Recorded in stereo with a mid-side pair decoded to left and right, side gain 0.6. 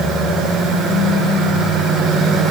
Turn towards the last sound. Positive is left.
No sound to turn to.